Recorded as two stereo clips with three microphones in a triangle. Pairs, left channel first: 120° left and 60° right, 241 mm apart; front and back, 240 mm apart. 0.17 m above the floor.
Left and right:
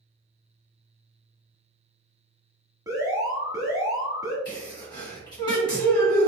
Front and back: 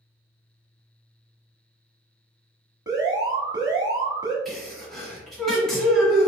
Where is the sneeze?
85° left, 1.6 m.